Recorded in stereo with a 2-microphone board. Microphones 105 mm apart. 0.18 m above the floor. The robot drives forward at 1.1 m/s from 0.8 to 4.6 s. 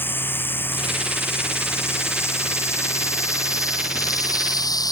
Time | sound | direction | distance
0.0 | running water | 20° left (ahead or behind) | ?